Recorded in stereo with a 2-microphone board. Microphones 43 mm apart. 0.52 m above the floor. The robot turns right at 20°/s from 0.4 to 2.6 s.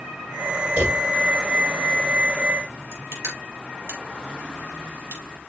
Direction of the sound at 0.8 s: 35° right (ahead or behind).